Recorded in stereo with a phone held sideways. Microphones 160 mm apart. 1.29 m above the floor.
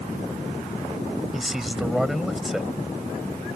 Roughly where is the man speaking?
Centre.